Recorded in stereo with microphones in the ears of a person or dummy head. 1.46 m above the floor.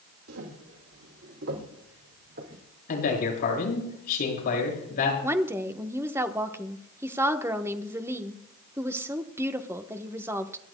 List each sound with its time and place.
0.3 s footsteps: 65° right (ahead or behind), 4 m; by 2.6 s 55° right (ahead or behind), 4 m
2.9 s a man speaking: 50° left (ahead or behind), 7 m
5.2 s a woman speaking: 15° right (ahead or behind), 1.0 m